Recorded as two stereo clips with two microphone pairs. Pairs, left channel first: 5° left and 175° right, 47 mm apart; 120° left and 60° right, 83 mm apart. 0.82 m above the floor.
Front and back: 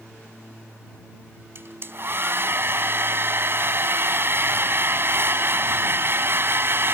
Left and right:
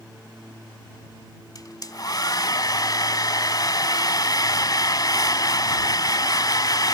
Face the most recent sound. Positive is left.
turn(degrees=155)